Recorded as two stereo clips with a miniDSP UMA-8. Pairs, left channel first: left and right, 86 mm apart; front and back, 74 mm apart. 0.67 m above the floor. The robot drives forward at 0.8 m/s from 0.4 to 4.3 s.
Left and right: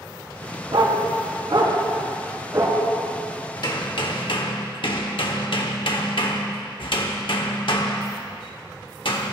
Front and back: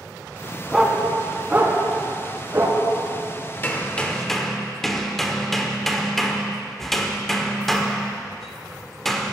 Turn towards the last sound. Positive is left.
turn(degrees=85)